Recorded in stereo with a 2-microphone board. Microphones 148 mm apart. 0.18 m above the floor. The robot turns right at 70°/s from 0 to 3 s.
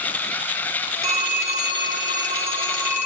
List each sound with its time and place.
1.0 s a phone ringing: 155° right, 1.3 m; by 3.1 s 15° right, 1.3 m